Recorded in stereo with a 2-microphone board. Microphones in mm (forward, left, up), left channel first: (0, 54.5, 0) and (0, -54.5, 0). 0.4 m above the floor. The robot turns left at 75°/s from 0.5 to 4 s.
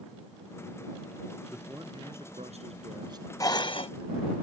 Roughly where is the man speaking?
Ahead.